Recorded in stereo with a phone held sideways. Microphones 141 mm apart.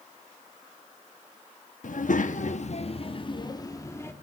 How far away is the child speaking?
About 0.9 m.